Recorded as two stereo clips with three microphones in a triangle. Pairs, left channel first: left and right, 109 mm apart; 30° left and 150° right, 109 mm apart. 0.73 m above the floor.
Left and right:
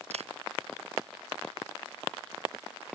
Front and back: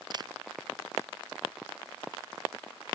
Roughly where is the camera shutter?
Right.